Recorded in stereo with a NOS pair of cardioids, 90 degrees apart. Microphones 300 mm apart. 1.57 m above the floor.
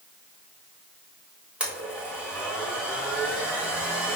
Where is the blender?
5° right, 2.5 m.